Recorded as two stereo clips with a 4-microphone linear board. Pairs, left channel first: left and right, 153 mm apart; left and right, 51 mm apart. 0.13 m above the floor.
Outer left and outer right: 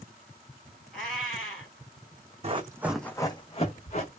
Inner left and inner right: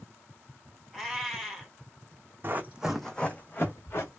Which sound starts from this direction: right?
Running footsteps, at 2.4 s.